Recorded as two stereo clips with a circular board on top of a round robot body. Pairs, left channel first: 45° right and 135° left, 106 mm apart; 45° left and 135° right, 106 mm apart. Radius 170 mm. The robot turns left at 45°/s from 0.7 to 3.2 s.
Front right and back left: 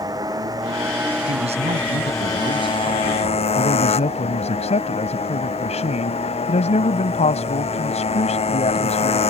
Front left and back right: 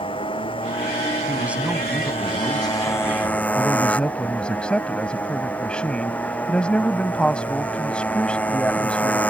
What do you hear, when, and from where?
0.0 s a motorcycle: 80° left; by 9.3 s 30° right
1.2 s a man speaking: 160° left; by 3.5 s 70° left
3.5 s a man speaking: 35° right